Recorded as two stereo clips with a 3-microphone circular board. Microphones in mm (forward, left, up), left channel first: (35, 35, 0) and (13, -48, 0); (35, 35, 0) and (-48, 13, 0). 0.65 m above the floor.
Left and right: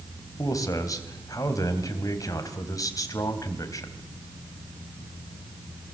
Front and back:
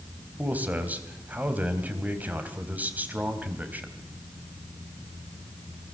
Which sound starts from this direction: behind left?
A man speaking, at 0.4 s.